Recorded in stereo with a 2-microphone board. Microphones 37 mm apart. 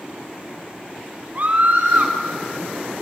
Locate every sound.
1.4 s a scream: 45° right (ahead or behind), 4.5 m